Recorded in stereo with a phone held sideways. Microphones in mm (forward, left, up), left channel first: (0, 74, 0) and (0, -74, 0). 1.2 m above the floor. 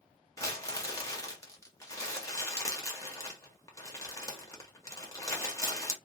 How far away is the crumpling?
About 1.4 m.